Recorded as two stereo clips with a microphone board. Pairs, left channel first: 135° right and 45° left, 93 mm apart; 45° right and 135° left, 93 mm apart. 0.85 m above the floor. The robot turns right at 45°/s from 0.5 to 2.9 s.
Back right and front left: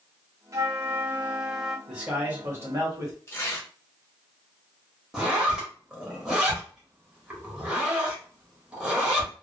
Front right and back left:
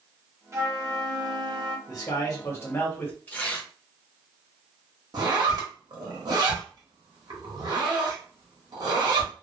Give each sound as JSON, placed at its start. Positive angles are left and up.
{"t": 0.5, "sound": "a flute", "azimuth_deg": 85, "distance_m": 0.6}
{"t": 1.9, "sound": "a man speaking", "azimuth_deg": -35, "distance_m": 1.3}
{"t": 3.3, "sound": "tearing paper", "azimuth_deg": -100, "distance_m": 0.8}
{"t": 5.1, "sound": "a zipper", "azimuth_deg": 120, "distance_m": 1.1}